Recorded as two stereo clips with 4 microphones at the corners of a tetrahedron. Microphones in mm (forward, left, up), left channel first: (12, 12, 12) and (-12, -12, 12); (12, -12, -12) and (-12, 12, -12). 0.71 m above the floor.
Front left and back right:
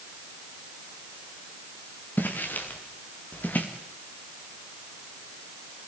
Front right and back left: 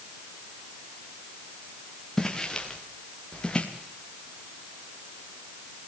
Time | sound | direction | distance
2.2 | footsteps | 30° left | 4.5 m